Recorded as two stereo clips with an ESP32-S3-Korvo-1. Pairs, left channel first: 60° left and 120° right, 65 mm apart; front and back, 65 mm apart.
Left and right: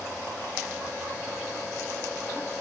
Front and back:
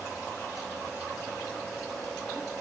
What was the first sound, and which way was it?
Only background noise.